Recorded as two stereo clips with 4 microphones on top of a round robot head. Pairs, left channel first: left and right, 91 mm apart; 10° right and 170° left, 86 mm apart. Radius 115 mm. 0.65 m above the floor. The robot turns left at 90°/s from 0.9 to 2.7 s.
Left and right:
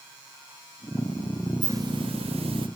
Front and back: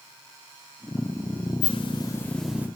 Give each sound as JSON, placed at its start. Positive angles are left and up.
{"t": 1.6, "sound": "a hiss", "azimuth_deg": -20, "distance_m": 1.1}